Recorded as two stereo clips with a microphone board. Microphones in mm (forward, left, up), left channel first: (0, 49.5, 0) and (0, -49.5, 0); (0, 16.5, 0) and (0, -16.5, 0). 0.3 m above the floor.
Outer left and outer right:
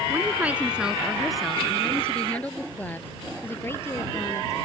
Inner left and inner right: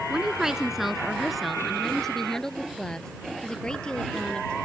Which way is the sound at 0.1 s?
20° right (ahead or behind).